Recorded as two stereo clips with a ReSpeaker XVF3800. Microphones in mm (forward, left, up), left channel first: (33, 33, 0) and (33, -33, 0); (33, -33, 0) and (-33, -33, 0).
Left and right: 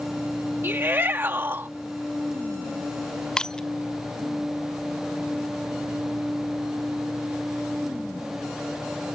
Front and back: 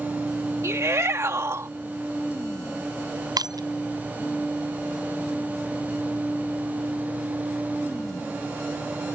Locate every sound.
0.6 s a shout: 140° right
3.4 s breaking glass: 170° left